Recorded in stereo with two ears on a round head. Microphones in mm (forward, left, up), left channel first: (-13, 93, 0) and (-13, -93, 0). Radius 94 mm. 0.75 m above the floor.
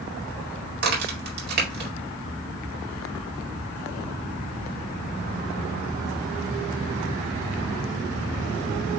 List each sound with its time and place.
0.8 s a crack: 50° right (ahead or behind), 2 m